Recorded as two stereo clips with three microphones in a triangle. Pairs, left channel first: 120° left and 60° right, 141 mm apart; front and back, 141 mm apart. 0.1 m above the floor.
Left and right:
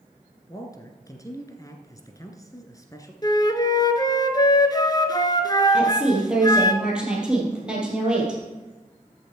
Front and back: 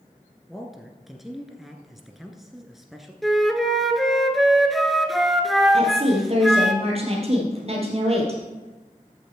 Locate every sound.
0.5 s a man speaking: 95° left, 1.1 m
3.2 s a flute: 90° left, 0.8 m
5.7 s a woman speaking: 145° right, 3 m